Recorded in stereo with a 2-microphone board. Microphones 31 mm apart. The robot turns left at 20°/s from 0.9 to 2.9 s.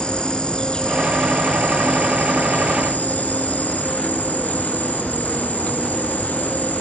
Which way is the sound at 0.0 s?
145° left.